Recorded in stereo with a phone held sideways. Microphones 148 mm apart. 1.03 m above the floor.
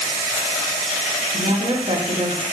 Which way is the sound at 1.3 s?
40° right (ahead or behind).